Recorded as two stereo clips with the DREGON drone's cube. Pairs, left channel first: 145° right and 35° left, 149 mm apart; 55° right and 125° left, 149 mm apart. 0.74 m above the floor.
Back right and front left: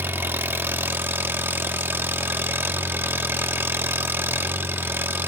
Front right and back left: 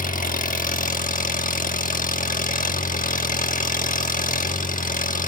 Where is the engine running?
40° right, 1.1 m.